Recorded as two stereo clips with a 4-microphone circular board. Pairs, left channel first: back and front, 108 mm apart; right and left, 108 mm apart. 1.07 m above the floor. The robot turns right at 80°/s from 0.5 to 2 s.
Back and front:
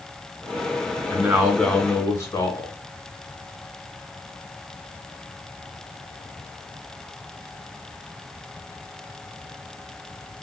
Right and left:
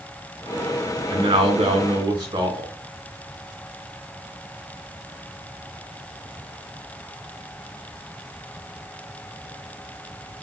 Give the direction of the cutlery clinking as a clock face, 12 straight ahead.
No cutlery clinking in this recording.